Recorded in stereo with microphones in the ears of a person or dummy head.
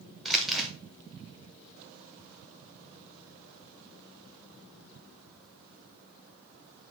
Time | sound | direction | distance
0.2 | crumpling | centre (ahead or behind) | 0.8 m